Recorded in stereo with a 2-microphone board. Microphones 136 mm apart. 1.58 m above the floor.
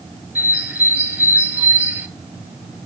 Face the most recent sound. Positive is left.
turn(degrees=-10)  # may be behind; listen again after turning